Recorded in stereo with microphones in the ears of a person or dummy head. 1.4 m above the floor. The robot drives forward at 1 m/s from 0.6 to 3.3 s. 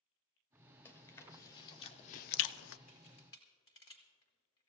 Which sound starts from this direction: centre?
Chewing, at 0.8 s.